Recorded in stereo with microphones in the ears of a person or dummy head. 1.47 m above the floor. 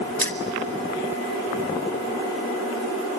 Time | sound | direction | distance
0.2 | keys jangling | 10° left (ahead or behind) | 0.7 m